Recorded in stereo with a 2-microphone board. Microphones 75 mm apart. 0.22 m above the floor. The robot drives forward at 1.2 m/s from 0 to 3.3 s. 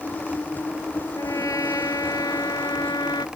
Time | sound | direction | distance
1.1 | a trumpet | 45° left (ahead or behind) | ?